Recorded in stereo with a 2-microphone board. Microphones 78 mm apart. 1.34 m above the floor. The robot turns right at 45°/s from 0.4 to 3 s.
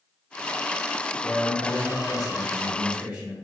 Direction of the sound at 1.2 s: 110° left.